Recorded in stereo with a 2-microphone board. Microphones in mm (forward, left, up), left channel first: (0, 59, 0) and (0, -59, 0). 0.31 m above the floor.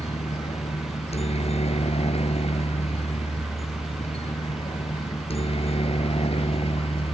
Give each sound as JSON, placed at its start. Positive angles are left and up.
{"t": 0.0, "sound": "a helicopter", "side_deg": 60}